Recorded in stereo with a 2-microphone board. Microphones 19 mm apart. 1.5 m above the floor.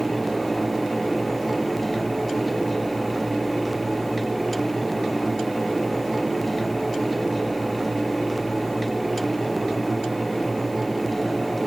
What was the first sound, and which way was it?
Only background noise.